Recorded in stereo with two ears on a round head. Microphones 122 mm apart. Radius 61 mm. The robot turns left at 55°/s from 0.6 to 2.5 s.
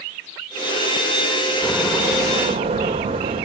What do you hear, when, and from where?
1.6 s a door slam: 5° left, 3 m; by 3.5 s 45° right, 3 m